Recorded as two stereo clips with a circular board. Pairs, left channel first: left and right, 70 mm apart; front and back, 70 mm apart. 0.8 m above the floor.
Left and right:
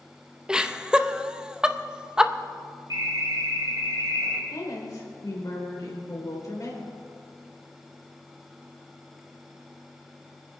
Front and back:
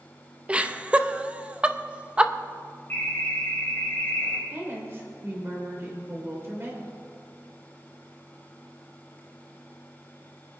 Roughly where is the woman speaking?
Behind left.